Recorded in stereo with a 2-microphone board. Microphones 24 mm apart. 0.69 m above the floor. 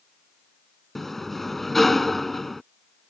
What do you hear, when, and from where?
0.9 s a sliding door: 15° left (ahead or behind)